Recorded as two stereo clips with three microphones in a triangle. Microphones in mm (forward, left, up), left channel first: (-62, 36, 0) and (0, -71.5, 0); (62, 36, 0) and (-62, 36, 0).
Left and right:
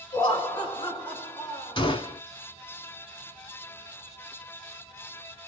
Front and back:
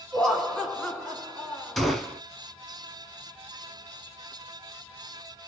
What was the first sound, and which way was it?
Laughter, 85° left.